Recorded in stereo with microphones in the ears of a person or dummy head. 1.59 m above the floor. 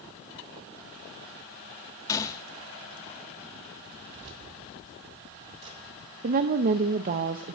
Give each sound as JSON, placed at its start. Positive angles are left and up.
{"t": 2.1, "sound": "a gunshot", "side_deg": 15, "distance_m": 0.8}
{"t": 4.1, "sound": "keys jangling", "side_deg": -30, "distance_m": 3.0}
{"t": 6.2, "sound": "a woman speaking", "side_deg": -45, "distance_m": 0.6}